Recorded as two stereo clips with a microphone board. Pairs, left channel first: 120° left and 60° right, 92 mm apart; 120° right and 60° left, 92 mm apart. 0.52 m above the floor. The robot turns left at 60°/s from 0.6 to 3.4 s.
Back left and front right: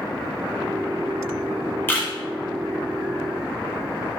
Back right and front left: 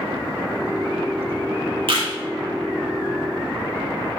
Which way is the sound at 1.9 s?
50° left.